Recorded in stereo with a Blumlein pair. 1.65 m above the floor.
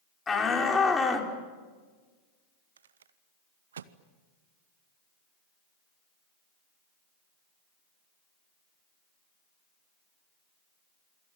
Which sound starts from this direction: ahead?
A shout, at 0.3 s.